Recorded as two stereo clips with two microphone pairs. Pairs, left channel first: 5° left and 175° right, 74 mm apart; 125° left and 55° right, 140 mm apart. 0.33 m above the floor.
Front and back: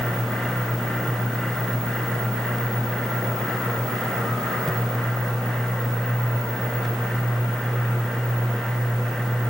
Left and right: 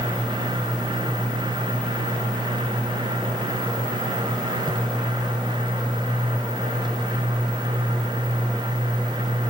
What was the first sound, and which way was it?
Only background noise.